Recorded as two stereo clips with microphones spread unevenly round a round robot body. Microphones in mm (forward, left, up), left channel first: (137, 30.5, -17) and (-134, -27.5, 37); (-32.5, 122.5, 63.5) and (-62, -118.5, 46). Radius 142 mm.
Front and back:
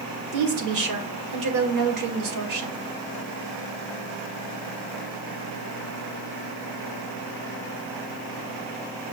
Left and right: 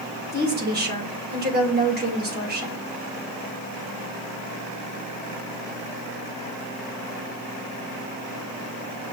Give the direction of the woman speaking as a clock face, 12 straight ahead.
5 o'clock.